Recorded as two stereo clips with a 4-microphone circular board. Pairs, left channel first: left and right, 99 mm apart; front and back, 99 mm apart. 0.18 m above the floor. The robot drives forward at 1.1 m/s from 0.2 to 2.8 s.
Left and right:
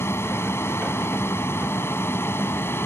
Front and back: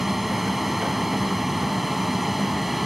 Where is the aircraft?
95° left; by 2.9 s 90° left.